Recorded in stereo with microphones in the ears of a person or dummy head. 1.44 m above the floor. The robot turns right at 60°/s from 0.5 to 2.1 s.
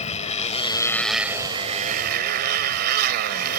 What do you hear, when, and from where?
0.0 s a motorcycle: 145° left; by 3.6 s 120° right